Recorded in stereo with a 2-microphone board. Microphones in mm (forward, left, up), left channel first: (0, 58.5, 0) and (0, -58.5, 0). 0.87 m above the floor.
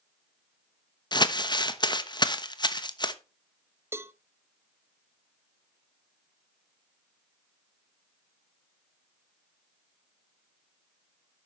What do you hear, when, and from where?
1.1 s crumpling: 40° left (ahead or behind), 1.0 m
3.9 s a cowbell: 20° right (ahead or behind), 0.5 m